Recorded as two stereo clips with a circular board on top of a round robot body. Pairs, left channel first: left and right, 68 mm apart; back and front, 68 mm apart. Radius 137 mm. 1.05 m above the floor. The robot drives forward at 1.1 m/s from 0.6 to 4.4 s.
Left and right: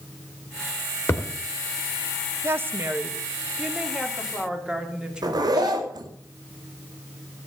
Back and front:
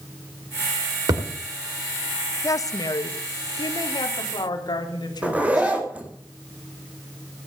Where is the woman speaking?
140° right, 0.8 m; by 5.8 s 170° right, 3 m.